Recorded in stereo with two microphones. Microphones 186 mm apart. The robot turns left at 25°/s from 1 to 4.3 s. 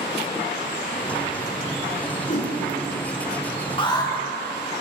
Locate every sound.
2.3 s a whoosh: 45° left (ahead or behind), 3 m
3.8 s an alarm: 25° left (ahead or behind), 1.6 m; by 4.1 s 20° left (ahead or behind), 1.6 m